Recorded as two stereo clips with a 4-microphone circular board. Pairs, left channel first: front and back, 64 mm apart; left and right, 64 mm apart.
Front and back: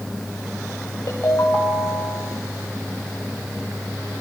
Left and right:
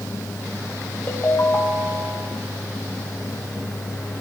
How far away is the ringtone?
About 5.5 m.